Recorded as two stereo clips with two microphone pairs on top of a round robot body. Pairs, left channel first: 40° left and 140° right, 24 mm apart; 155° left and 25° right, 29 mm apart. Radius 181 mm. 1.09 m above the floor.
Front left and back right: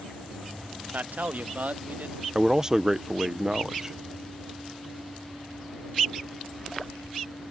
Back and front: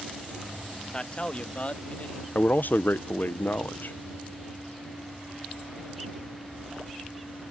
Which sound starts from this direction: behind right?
A man speaking, at 0.9 s.